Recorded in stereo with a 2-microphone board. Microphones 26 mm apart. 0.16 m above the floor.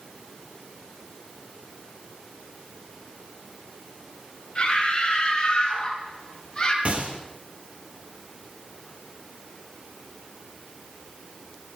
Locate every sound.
4.5 s a scream: 40° left (ahead or behind), 5.5 m; by 6.8 s 35° left (ahead or behind), 4.5 m
6.8 s a gunshot: 55° right (ahead or behind), 2 m